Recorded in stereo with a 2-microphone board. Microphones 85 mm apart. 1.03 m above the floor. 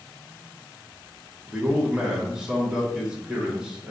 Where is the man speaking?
10° right (ahead or behind), 1.3 m.